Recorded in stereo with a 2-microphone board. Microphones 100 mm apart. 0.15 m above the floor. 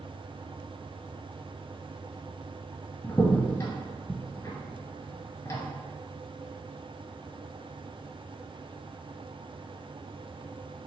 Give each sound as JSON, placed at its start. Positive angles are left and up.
{"t": 3.0, "sound": "a crack", "side_deg": 30, "distance_m": 1.0}